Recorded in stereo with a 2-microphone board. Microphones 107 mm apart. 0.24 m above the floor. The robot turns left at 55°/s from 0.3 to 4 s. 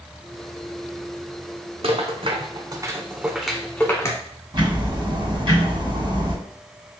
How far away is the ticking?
About 2 m.